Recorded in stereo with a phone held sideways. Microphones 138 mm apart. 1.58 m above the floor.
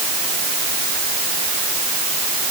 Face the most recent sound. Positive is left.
No sound to turn to.